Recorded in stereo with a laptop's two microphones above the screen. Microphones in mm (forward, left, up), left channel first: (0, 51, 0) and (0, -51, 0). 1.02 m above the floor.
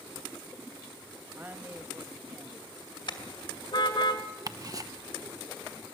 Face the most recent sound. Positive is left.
turn(degrees=-35)  # may be behind; listen again after turning